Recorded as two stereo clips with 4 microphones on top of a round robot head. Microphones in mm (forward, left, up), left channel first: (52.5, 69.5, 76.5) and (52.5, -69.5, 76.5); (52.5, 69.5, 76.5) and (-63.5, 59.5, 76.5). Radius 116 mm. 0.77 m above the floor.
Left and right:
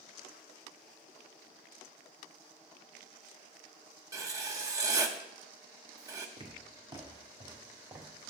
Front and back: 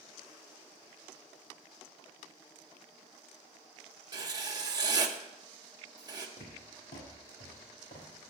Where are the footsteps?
35° right, 4 m; by 8.3 s 15° right, 3.5 m.